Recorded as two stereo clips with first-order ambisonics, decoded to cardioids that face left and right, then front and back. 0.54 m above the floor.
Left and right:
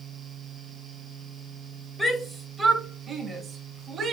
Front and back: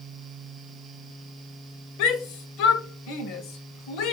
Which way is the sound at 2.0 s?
5° left.